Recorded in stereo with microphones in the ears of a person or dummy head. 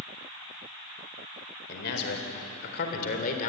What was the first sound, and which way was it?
A man speaking, 60° left (ahead or behind).